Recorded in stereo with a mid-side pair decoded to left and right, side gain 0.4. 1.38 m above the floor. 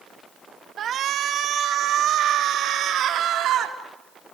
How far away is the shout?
About 2 m.